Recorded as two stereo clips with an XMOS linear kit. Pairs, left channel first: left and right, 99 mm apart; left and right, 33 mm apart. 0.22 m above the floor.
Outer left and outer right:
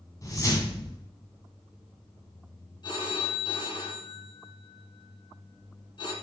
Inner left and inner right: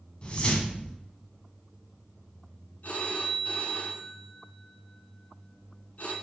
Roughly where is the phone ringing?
Left.